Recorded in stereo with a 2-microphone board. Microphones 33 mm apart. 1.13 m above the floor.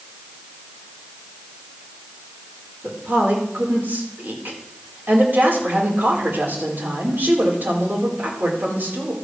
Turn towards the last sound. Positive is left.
turn(degrees=-70)  # may be behind; listen again after turning